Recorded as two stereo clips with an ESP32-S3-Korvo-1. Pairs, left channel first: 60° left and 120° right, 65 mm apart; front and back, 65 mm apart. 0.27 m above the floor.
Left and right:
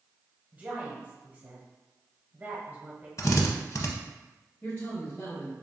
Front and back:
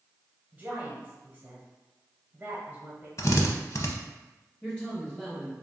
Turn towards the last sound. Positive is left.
turn(degrees=70)